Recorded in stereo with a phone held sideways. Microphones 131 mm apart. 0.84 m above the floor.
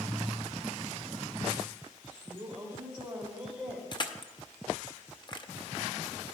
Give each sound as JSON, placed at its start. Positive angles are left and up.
{"t": 2.2, "sound": "a woman speaking", "side_deg": -15, "distance_m": 4.0}
{"t": 3.9, "sound": "crushing", "side_deg": 35, "distance_m": 0.6}